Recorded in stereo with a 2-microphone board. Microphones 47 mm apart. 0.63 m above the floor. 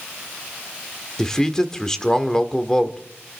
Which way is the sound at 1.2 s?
15° left (ahead or behind).